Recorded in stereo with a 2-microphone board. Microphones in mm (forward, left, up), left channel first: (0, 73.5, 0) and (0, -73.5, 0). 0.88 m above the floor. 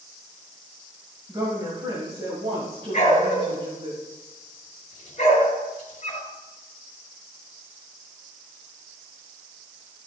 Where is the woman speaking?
30° right (ahead or behind), 6 m; by 3.9 s 45° right (ahead or behind), 6 m.